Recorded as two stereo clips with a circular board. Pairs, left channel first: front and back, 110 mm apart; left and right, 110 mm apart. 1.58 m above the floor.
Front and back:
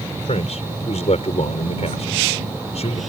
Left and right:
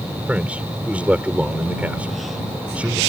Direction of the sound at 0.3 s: 10° right.